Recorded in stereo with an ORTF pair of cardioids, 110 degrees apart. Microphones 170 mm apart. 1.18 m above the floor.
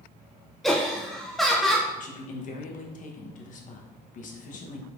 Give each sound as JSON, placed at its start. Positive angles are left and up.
{"t": 0.6, "sound": "laughter", "azimuth_deg": 0, "distance_m": 0.5}
{"t": 2.0, "sound": "a man speaking", "azimuth_deg": 50, "distance_m": 0.9}